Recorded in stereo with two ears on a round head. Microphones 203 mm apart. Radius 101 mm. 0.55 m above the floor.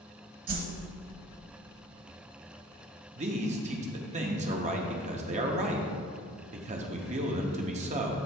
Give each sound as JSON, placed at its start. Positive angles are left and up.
{"t": 0.5, "sound": "a whoosh", "side_deg": -40, "distance_m": 1.1}
{"t": 3.1, "sound": "a man speaking", "side_deg": -30, "distance_m": 0.7}